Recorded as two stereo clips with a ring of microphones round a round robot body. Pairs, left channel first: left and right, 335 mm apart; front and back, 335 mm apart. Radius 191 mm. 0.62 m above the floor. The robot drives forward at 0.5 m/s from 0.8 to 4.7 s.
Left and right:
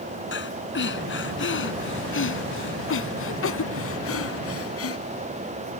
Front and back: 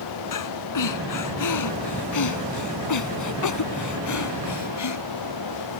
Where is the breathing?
30° left; by 5.0 s 40° left.